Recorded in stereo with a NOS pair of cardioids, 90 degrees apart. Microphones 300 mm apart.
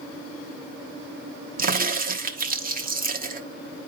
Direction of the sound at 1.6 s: 30° right.